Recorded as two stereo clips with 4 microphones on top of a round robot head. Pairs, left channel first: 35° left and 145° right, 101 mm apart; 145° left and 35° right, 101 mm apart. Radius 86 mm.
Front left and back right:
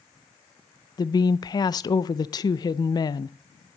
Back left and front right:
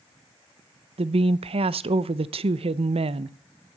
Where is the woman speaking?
15° right, 0.6 m.